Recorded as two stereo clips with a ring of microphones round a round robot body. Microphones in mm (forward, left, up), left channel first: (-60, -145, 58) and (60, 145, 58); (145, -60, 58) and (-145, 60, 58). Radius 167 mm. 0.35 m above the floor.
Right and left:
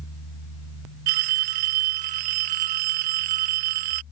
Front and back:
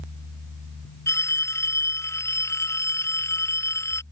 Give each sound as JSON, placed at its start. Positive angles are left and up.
{"t": 1.1, "sound": "a phone ringing", "azimuth_deg": 60}